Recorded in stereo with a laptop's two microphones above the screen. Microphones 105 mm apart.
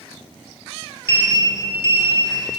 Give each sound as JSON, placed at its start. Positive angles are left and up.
{"t": 1.1, "sound": "a sliding door", "side_deg": -25, "distance_m": 0.6}